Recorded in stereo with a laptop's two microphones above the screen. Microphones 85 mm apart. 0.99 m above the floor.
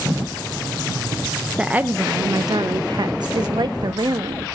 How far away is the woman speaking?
About 0.6 m.